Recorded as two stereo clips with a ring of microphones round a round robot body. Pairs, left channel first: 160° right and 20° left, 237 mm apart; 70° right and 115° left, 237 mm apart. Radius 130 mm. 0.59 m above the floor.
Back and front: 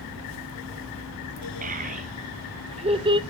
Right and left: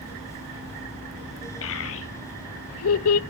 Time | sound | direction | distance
1.6 | a child speaking | 35° right | 2 m